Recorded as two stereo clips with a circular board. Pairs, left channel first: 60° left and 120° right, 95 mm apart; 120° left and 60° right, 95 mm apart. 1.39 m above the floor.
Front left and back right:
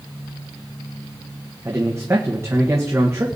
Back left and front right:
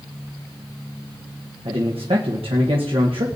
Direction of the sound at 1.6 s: 60° right.